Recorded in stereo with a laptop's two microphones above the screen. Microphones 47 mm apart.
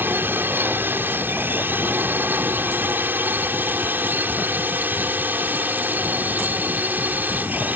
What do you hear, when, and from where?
0.0 s a drone: 50° right (ahead or behind); by 7.8 s 40° right (ahead or behind)